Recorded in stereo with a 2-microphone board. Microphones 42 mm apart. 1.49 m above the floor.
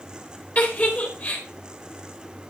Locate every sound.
0.6 s a giggle: 40° left (ahead or behind), 4.5 m